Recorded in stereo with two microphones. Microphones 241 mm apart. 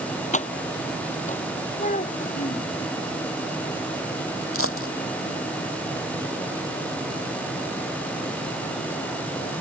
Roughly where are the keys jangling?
Left.